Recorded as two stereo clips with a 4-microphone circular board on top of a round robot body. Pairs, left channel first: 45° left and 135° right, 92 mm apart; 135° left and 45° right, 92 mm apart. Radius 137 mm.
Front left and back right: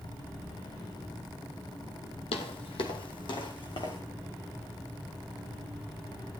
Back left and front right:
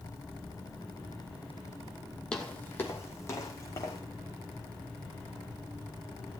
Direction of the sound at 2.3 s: 55° left.